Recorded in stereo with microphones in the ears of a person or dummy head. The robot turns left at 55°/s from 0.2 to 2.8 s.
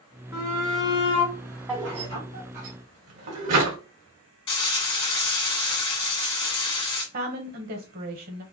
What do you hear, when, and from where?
0.3 s a shout: 70° left, 2 m; by 2.7 s 60° right, 2 m
1.7 s a drawer: 10° right (ahead or behind), 2.5 m; by 3.8 s 60° right (ahead or behind), 2.5 m
4.5 s frying: 30° left (ahead or behind), 1.9 m
7.1 s a woman speaking: 50° right (ahead or behind), 0.9 m